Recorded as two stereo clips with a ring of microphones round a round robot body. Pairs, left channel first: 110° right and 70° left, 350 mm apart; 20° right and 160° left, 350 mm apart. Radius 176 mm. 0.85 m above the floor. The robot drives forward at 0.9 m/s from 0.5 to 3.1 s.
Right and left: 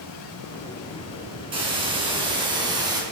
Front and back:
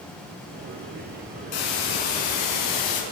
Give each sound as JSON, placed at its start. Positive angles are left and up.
{"t": 1.5, "sound": "a hiss", "azimuth_deg": -10, "distance_m": 4.5}